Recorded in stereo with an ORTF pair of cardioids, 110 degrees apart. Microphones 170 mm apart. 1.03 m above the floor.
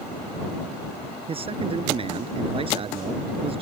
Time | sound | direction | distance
1.3 | a man speaking | 35° right | ?